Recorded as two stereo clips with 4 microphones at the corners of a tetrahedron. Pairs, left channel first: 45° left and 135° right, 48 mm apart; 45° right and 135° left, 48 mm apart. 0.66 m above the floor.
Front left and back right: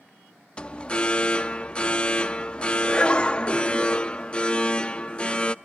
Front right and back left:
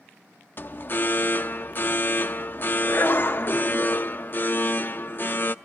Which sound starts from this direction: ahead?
An alarm, at 0.6 s.